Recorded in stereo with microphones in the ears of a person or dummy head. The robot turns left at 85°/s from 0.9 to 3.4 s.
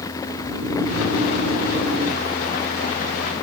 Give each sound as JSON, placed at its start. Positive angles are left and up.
{"t": 0.3, "sound": "snoring", "azimuth_deg": -60, "distance_m": 1.6}